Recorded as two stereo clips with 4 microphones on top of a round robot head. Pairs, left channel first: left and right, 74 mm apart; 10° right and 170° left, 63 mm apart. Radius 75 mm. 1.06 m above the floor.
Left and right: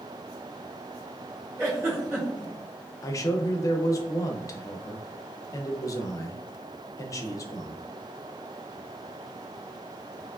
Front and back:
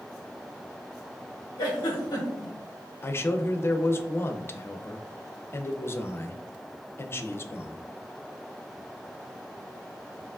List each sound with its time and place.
1.6 s a giggle: 25° right, 1.4 m
3.0 s a man speaking: 40° left, 0.5 m